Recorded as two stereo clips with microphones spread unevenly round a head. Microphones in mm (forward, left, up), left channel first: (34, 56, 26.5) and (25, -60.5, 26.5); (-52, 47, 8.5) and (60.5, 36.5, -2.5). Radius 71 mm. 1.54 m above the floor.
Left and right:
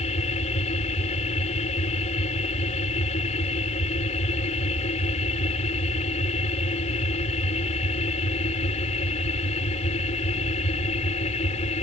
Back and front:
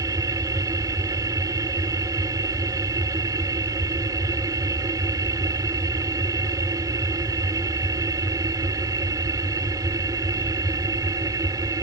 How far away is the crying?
I don't hear crying.